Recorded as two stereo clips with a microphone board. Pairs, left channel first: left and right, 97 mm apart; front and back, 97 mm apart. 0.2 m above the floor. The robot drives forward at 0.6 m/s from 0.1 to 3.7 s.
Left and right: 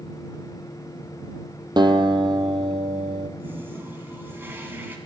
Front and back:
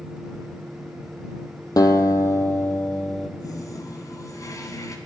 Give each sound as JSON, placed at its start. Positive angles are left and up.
{"t": 1.8, "sound": "a guitar", "azimuth_deg": -50, "distance_m": 1.4}
{"t": 3.4, "sound": "a toilet flushing", "azimuth_deg": -30, "distance_m": 1.8}